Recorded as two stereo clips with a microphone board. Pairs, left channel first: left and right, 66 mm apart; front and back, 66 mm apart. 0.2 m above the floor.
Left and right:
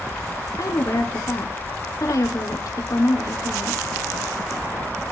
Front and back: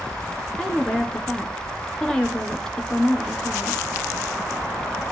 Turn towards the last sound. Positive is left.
turn(degrees=75)